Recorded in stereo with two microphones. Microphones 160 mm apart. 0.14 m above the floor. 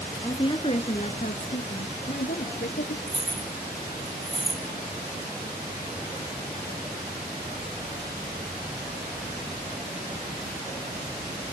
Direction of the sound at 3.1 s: 40° right (ahead or behind).